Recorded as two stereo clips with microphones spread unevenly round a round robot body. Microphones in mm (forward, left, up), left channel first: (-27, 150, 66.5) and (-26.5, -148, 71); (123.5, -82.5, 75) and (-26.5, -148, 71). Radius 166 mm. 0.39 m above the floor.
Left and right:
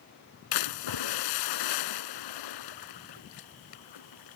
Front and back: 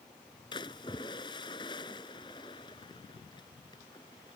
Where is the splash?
100° left.